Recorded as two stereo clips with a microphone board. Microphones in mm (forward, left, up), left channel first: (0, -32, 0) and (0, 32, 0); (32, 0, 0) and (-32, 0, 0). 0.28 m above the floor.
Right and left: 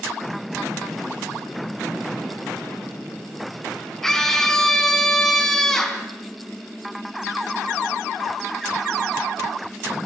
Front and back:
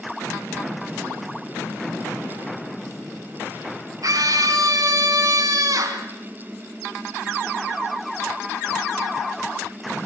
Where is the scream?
170° right, 2.5 m.